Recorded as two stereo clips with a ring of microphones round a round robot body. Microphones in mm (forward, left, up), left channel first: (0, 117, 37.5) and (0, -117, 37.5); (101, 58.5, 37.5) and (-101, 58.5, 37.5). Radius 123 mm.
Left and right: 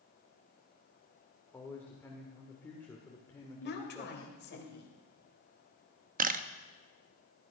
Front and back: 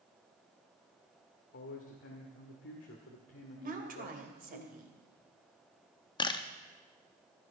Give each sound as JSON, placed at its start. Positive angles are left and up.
{"t": 1.5, "sound": "a man speaking", "azimuth_deg": 10, "distance_m": 1.7}
{"t": 3.6, "sound": "a woman speaking", "azimuth_deg": 135, "distance_m": 2.5}
{"t": 6.2, "sound": "a camera shutter", "azimuth_deg": -60, "distance_m": 0.7}